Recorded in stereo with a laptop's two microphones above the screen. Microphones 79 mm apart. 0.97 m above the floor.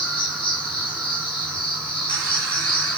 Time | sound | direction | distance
0.0 | an insect | 20° left (ahead or behind) | 8.5 m